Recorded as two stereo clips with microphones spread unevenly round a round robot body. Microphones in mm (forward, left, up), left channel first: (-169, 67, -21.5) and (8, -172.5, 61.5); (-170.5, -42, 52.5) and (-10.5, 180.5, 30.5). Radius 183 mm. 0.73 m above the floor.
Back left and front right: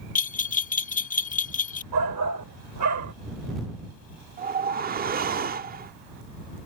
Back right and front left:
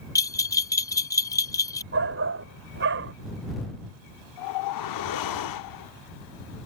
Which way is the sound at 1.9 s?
Straight ahead.